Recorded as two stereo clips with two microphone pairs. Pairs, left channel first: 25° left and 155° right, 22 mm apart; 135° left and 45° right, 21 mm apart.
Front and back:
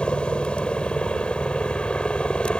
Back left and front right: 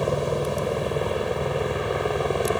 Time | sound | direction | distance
0.0 | a helicopter | 50° left | ?